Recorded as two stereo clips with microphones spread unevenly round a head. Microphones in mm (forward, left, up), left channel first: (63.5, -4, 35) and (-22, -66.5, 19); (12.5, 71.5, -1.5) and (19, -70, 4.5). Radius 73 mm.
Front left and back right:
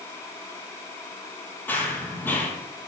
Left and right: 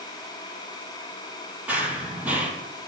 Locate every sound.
1.7 s running footsteps: 15° right, 1.9 m